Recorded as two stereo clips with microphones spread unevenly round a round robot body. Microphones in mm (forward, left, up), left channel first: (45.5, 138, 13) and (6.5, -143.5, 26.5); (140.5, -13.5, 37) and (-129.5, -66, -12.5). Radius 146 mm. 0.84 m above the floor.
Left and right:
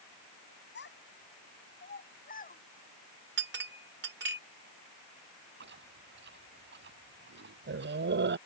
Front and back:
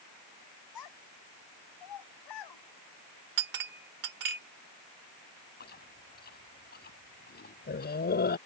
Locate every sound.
0.8 s a child speaking: 30° left; by 2.6 s 20° left
3.4 s a clink: 155° right
5.6 s chewing: 45° right